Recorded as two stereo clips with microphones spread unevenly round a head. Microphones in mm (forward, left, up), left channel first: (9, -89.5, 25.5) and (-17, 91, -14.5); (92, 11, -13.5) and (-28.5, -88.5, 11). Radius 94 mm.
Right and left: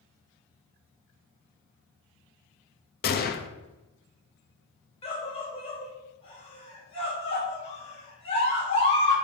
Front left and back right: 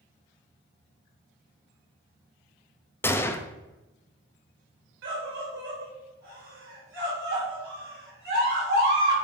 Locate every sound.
3.0 s a gunshot: 35° right, 0.9 m
5.0 s a scream: 145° right, 4 m